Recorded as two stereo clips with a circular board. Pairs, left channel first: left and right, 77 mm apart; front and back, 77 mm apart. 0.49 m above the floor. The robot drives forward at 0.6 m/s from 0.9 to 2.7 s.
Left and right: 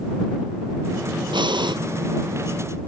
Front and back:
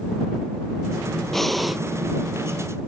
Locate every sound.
1.3 s breathing: 85° right; by 1.8 s 95° right